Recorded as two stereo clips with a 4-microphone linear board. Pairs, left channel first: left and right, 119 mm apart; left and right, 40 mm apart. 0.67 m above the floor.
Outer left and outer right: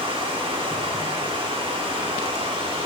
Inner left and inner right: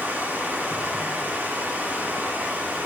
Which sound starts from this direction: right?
Running water, at 0.0 s.